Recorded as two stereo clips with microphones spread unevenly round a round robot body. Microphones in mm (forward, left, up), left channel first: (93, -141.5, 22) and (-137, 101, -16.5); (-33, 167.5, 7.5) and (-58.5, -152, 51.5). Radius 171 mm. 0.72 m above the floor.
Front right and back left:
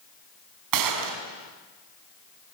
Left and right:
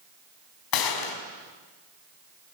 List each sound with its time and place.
0.7 s a gunshot: 95° left, 5 m